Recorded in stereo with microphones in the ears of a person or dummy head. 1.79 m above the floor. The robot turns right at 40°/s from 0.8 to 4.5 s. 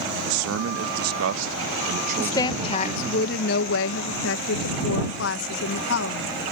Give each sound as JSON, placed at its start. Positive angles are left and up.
{"t": 0.3, "sound": "a man speaking", "azimuth_deg": -100}
{"t": 2.2, "sound": "a woman speaking", "azimuth_deg": 15}